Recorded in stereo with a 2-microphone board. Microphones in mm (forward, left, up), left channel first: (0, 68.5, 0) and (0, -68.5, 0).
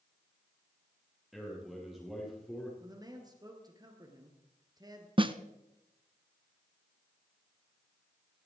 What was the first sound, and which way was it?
A man speaking, centre (ahead or behind).